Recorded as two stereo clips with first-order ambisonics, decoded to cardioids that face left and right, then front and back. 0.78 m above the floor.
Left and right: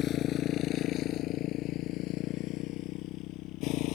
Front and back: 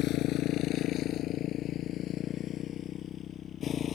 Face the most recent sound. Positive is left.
turn(degrees=60)